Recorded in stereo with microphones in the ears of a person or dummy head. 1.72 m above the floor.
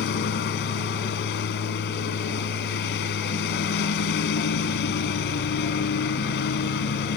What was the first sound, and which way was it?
A lawn mower, 60° left (ahead or behind).